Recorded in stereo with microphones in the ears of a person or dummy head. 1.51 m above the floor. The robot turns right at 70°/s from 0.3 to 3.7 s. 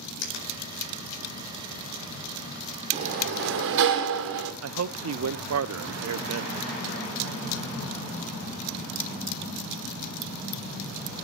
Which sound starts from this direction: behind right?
A sliding door, at 2.9 s.